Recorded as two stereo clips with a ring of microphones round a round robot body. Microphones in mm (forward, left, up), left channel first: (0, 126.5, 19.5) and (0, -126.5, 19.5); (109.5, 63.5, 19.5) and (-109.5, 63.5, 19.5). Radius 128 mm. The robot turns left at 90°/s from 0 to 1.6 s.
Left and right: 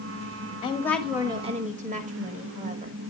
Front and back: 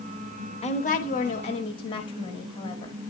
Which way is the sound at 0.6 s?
35° left.